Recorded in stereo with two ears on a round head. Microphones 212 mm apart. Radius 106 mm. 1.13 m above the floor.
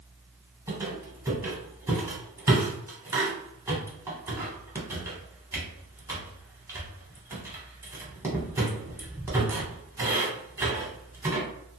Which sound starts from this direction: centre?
A squeak, at 0.7 s.